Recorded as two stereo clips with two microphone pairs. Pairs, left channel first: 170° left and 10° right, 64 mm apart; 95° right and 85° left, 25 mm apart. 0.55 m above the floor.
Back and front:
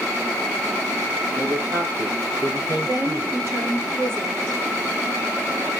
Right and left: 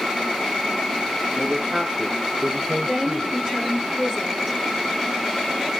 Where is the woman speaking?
40° left, 9.5 m.